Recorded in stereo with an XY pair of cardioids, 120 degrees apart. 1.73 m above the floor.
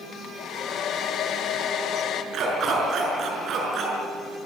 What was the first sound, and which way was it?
A hair dryer, 60° left.